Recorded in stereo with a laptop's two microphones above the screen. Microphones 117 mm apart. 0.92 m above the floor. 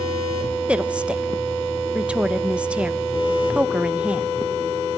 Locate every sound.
0.7 s a woman speaking: 10° right (ahead or behind), 0.9 m